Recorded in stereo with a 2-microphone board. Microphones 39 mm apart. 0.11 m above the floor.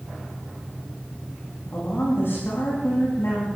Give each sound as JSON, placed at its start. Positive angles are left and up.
{"t": 1.7, "sound": "a woman speaking", "side_deg": 75, "distance_m": 7.5}